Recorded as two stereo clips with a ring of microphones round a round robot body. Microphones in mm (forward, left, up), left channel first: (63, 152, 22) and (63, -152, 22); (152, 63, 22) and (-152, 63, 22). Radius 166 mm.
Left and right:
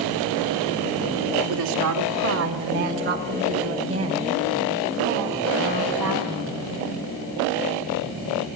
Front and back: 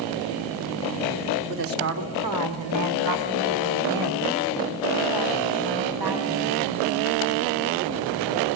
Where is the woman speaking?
125° right, 3 m; by 6.6 s 175° right, 8.5 m.